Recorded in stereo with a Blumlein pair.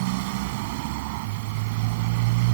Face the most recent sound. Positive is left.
turn(degrees=-50)